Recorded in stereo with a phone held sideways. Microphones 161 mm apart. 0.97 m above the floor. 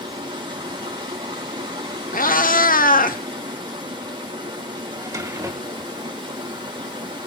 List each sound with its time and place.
0.0 s running water: 30° right (ahead or behind), 4.5 m
2.1 s a cat meowing: 60° left (ahead or behind), 1.0 m
4.9 s a drawer: 20° right (ahead or behind), 1.8 m